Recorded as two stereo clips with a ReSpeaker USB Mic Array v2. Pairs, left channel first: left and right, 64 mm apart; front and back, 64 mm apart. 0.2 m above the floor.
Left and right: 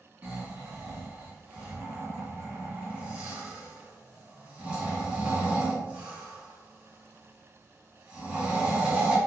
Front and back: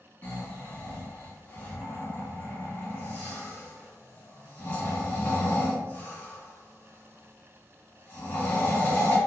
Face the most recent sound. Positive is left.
turn(degrees=-40)